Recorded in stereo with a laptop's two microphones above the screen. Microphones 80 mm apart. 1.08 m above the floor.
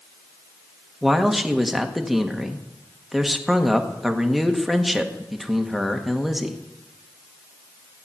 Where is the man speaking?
5° right (ahead or behind), 1.6 m.